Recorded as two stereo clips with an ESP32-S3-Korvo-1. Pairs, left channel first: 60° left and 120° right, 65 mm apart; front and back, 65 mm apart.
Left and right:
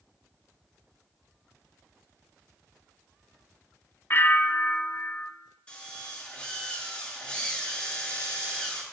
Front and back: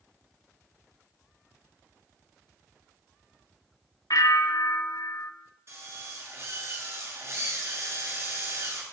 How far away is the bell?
About 0.9 m.